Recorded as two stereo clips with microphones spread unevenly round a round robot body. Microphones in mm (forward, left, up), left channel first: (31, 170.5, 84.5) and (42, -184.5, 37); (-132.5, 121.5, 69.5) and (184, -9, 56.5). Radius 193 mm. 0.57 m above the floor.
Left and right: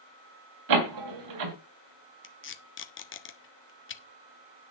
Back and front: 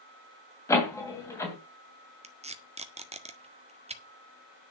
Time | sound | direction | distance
0.7 | a door slam | 120° right | 2.5 m
2.2 | tape being pulled | 40° left | 1.6 m